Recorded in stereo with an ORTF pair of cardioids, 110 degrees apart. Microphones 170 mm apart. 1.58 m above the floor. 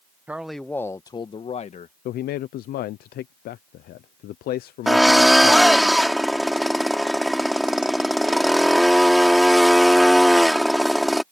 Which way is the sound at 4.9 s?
Straight ahead.